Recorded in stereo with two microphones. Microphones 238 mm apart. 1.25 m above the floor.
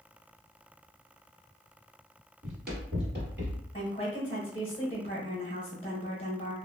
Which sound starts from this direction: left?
A woman speaking, at 3.7 s.